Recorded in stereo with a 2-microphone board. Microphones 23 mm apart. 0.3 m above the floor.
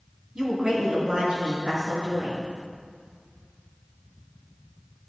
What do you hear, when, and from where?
0.3 s a woman speaking: 35° right (ahead or behind), 2 m; by 2.4 s 60° right (ahead or behind), 5 m